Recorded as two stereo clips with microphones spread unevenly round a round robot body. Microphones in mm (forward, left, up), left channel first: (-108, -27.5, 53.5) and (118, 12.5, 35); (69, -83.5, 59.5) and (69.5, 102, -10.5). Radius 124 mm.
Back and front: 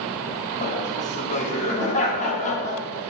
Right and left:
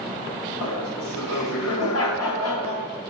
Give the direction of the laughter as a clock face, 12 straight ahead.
4 o'clock.